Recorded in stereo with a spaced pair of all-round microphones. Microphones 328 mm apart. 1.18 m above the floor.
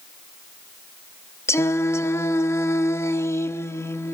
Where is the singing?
10° left (ahead or behind), 0.7 m.